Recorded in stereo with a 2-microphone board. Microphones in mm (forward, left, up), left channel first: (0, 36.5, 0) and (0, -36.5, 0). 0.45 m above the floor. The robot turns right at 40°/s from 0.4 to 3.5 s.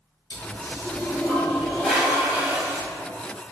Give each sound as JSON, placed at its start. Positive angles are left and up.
{"t": 0.3, "sound": "a toilet flushing", "azimuth_deg": 115, "distance_m": 1.5}